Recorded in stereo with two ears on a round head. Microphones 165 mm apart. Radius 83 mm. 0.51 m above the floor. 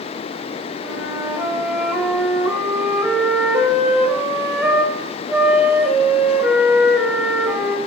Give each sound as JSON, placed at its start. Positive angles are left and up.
{"t": 0.8, "sound": "a flute", "side_deg": -5, "distance_m": 2.0}